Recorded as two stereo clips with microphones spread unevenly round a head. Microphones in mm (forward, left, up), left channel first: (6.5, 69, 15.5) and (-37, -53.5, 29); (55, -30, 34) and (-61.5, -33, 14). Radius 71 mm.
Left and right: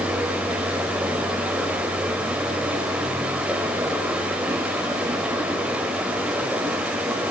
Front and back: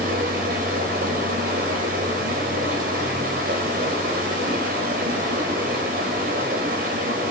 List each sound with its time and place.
0.0 s running water: 170° left, 4 m